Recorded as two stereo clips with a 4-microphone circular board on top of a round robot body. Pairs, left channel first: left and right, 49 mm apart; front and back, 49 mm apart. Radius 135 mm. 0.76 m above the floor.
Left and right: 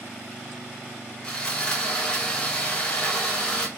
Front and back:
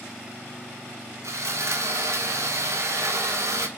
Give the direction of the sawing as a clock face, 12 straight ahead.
6 o'clock.